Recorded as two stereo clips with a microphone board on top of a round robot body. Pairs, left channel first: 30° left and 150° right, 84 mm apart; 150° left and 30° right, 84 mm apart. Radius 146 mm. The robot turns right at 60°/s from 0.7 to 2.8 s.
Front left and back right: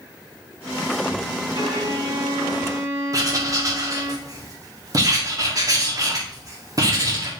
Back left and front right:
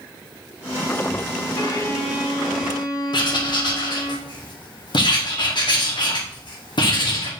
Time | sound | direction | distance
1.6 | a violin | 165° right | 1.9 m
3.1 | writing | 165° left | 1.8 m